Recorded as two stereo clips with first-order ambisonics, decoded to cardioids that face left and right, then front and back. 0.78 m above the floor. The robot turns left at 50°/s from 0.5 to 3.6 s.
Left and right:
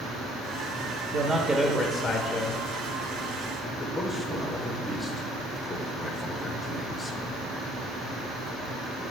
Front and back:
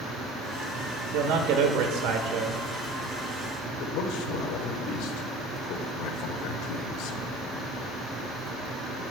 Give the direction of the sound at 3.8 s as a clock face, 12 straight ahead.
12 o'clock.